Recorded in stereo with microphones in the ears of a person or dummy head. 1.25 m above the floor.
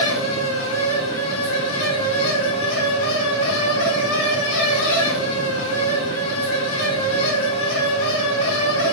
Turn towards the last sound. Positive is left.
turn(degrees=65)  # may be behind; listen again after turning